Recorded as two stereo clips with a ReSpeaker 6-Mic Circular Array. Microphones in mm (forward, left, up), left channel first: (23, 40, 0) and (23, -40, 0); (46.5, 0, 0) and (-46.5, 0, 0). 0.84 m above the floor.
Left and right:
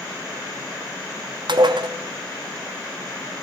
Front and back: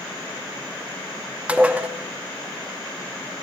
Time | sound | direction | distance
1.5 | dishes clattering | 105° right | 0.6 m